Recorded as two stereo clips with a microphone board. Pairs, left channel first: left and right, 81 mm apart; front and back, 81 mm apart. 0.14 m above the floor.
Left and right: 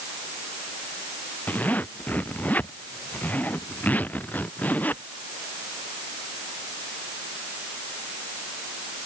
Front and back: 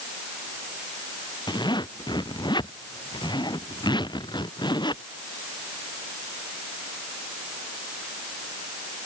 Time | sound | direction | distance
1.5 | a zipper | 20° left | ?